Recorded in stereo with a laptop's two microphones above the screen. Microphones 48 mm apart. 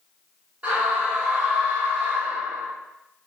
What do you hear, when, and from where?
0.6 s a scream: 30° right (ahead or behind), 1.3 m